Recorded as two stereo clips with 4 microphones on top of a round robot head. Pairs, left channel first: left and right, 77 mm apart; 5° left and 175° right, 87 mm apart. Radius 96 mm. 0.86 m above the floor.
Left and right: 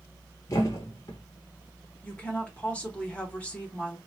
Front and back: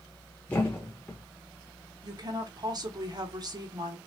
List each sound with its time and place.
0.5 s a thud: 70° left, 0.5 m
2.0 s a woman speaking: 160° left, 1.4 m